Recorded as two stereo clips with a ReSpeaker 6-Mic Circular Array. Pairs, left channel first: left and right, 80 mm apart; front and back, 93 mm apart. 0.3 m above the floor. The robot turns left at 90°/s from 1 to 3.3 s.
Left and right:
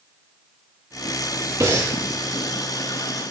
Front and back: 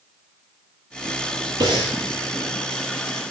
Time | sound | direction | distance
1.6 | breathing | 135° right | 5.5 m